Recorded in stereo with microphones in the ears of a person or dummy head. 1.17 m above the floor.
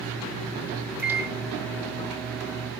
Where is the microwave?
15° right (ahead or behind), 1.9 m.